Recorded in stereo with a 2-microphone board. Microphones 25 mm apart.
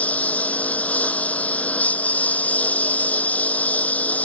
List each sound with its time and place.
0.0 s a lawn mower: 70° left (ahead or behind); by 4.2 s 80° left